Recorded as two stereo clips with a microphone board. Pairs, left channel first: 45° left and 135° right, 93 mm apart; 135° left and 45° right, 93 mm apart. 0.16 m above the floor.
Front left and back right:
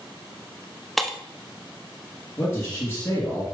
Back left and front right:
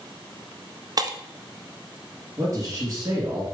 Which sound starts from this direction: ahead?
A man speaking, at 2.4 s.